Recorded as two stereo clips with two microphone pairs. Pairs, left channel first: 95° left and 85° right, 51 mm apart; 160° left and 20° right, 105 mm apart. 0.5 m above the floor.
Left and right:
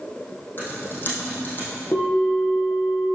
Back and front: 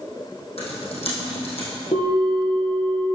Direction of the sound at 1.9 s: 145° left.